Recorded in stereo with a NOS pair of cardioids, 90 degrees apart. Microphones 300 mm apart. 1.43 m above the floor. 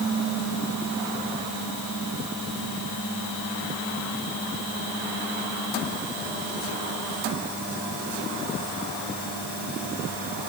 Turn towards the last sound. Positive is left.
No sound to turn to.